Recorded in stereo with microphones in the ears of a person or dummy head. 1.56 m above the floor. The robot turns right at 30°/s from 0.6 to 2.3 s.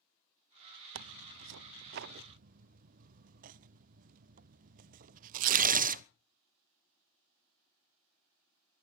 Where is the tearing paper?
80° right, 0.6 m; by 6.0 s 45° right (ahead or behind), 0.6 m.